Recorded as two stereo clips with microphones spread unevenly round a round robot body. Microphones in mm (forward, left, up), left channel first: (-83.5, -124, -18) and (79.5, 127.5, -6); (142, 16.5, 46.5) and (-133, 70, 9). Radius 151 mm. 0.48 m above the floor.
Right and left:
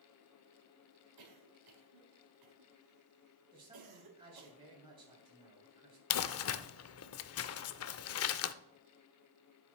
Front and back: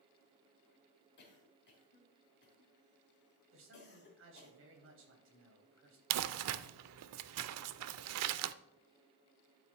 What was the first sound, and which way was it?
A cough, 45° left.